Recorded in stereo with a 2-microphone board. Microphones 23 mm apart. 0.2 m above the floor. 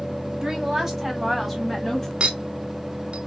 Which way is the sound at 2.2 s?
40° right (ahead or behind).